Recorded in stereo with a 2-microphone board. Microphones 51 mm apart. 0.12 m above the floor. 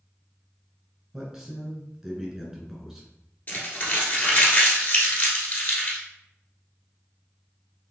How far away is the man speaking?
About 1.2 m.